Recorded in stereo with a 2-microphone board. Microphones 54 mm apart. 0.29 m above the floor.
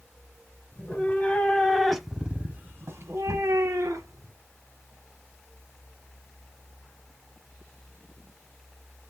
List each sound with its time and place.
0.7 s a cat meowing: 35° left (ahead or behind), 1.1 m; by 4.3 s 80° right, 1.2 m